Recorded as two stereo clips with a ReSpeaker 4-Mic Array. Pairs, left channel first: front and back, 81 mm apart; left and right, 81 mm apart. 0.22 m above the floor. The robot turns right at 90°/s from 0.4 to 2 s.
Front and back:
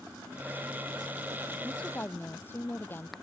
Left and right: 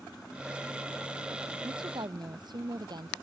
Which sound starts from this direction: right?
A woman speaking, at 1.6 s.